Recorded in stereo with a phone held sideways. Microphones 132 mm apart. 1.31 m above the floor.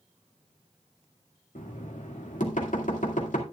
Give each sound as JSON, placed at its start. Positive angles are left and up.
{"t": 1.6, "sound": "knocking", "side_deg": 80, "distance_m": 2.0}